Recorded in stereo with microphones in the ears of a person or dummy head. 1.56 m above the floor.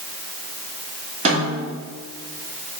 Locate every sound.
1.2 s a snare drum: 35° right (ahead or behind), 2.5 m